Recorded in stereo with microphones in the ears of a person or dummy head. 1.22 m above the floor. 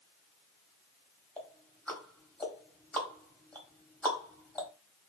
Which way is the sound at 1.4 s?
5° left (ahead or behind).